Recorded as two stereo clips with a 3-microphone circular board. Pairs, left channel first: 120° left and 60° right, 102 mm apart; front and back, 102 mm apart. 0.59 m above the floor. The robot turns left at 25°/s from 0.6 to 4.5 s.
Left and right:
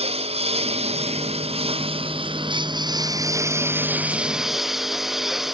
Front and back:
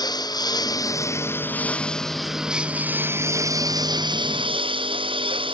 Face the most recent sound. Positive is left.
turn(degrees=-145)